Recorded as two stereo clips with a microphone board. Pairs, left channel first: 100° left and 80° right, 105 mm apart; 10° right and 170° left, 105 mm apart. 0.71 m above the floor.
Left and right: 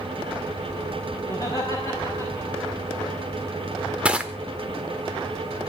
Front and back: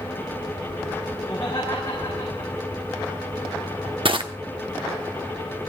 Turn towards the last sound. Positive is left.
turn(degrees=-155)